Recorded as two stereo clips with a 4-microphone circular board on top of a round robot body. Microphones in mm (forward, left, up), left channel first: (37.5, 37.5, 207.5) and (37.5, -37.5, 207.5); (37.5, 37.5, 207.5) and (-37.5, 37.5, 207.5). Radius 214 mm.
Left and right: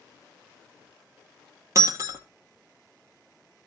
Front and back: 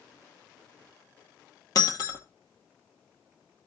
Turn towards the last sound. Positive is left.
turn(degrees=-40)